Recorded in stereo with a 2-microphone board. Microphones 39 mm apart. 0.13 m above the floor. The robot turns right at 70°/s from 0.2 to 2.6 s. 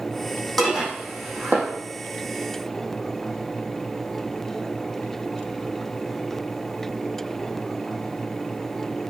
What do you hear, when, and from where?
0.6 s dishes clattering: 5° left (ahead or behind), 3.5 m; by 1.7 s 70° right (ahead or behind), 3.5 m